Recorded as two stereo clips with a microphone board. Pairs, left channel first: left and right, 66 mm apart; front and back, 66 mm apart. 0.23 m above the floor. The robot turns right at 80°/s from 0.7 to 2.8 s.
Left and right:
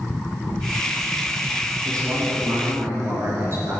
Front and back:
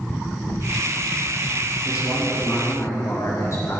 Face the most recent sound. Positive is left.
turn(degrees=-40)